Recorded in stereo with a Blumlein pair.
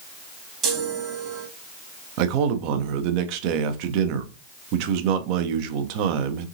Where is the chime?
30° right, 1.4 m.